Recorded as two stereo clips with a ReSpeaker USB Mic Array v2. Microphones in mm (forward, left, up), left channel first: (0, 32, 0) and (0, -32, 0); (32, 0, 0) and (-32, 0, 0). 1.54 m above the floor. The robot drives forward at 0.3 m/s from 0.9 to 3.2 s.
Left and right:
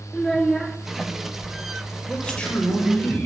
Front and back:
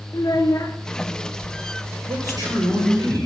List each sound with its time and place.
0.1 s a child speaking: 5° left, 0.7 m
2.1 s a man speaking: 170° left, 7.5 m